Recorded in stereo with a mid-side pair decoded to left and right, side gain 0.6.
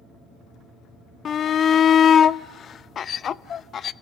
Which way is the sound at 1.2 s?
40° left.